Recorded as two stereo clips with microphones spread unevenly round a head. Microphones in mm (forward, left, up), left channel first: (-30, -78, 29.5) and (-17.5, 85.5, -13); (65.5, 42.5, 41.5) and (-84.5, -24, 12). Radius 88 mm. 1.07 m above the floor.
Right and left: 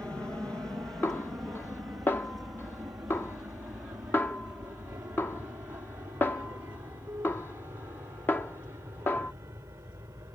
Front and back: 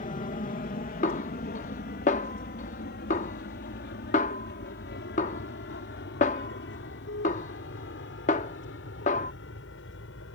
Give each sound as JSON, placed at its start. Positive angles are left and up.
{"t": 0.0, "sound": "an aircraft", "azimuth_deg": 5}
{"t": 1.0, "sound": "a snare drum", "azimuth_deg": -20}